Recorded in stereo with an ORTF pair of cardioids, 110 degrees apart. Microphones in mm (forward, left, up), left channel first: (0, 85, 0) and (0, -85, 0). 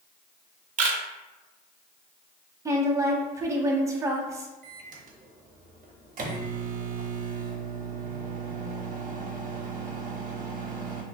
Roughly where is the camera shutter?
Ahead right.